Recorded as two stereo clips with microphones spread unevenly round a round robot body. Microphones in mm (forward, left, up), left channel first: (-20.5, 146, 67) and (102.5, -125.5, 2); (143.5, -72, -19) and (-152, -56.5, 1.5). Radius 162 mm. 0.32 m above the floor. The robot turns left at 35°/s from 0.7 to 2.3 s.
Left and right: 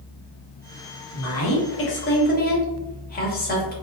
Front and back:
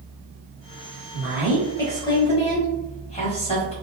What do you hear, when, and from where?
1.1 s a woman speaking: 95° left, 1.0 m; by 3.7 s 55° left, 1.0 m